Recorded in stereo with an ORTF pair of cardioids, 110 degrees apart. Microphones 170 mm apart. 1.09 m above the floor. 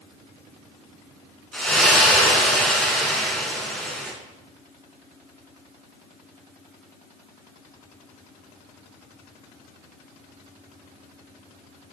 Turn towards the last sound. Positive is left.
turn(degrees=5)